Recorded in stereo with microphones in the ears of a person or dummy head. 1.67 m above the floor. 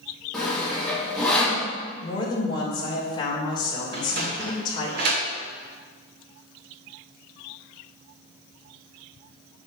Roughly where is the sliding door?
Right.